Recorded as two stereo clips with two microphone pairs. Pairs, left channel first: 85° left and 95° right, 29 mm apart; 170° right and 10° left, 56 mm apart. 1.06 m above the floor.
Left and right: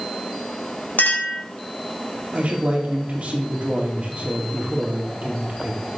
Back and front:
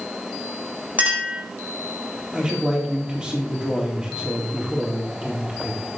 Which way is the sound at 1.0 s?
70° left.